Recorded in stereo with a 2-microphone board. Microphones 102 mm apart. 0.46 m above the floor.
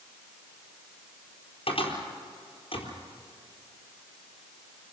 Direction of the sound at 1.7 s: 60° left (ahead or behind).